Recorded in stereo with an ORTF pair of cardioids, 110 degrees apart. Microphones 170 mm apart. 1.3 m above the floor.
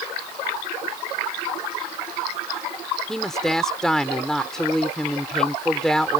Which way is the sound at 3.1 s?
Straight ahead.